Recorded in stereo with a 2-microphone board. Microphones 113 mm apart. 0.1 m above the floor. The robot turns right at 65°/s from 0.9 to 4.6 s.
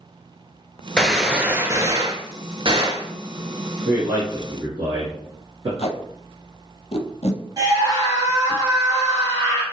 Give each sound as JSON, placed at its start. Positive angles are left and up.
{"t": 1.0, "sound": "a gunshot", "azimuth_deg": 170, "distance_m": 0.6}
{"t": 3.9, "sound": "a man speaking", "side_deg": -15, "distance_m": 1.4}
{"t": 5.8, "sound": "tape being pulled", "side_deg": 65, "distance_m": 0.6}
{"t": 7.6, "sound": "a scream", "side_deg": -30, "distance_m": 1.6}